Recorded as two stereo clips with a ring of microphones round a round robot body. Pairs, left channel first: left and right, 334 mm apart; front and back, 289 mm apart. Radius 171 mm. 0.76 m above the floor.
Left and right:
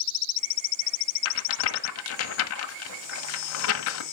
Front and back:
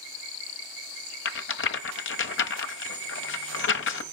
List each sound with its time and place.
1.2 s a rattle: 45° left, 1.3 m